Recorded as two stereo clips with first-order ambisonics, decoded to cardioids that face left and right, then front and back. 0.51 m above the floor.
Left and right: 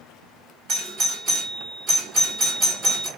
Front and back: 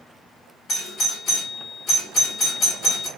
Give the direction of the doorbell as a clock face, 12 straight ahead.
2 o'clock.